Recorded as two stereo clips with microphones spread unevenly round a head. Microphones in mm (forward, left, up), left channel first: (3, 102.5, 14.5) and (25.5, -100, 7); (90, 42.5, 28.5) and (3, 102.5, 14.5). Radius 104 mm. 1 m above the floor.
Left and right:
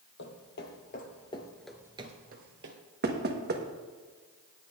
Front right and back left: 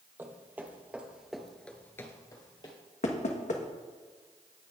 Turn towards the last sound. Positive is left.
turn(degrees=-45)